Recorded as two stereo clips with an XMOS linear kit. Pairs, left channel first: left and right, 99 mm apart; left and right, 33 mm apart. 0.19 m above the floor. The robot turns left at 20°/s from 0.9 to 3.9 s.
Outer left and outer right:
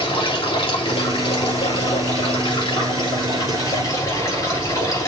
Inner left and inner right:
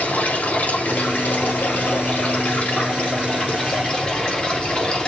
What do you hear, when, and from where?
0.0 s running water: 100° left, 3.5 m; by 5.1 s 40° left, 3.5 m